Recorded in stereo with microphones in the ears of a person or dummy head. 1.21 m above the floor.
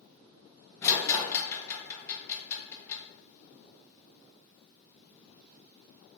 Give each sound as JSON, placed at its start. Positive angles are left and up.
{"t": 0.8, "sound": "a rattle", "side_deg": 20, "distance_m": 0.6}